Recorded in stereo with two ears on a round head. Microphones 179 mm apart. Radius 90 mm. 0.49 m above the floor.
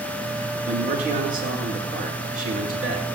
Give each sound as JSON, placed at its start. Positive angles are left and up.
{"t": 0.7, "sound": "a man speaking", "side_deg": -45, "distance_m": 7.5}